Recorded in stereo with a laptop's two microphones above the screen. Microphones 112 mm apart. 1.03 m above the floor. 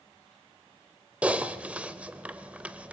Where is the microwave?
No microwave in this recording.